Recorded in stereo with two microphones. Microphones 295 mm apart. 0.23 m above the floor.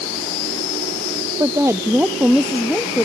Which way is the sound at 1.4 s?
10° right (ahead or behind).